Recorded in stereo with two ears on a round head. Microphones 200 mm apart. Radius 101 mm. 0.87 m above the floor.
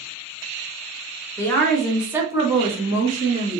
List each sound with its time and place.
1.4 s a woman speaking: 15° left (ahead or behind), 1.0 m; by 3.6 s 45° right (ahead or behind), 1.3 m